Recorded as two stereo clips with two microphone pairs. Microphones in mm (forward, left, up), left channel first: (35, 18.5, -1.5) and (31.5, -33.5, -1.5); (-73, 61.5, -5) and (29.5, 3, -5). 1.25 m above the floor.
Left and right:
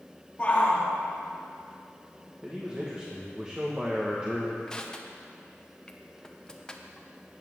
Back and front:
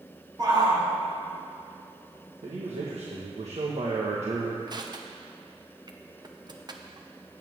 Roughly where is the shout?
Ahead left.